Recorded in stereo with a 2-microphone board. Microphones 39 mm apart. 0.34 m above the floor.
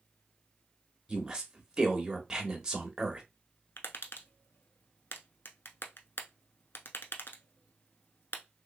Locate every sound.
1.1 s a woman speaking: 15° right (ahead or behind), 0.9 m
3.8 s tapping: 65° left (ahead or behind), 0.7 m